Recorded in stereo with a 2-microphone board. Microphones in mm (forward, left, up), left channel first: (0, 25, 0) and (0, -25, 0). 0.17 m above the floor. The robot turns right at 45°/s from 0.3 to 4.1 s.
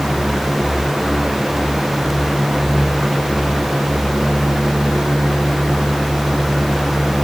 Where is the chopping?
No chopping in this recording.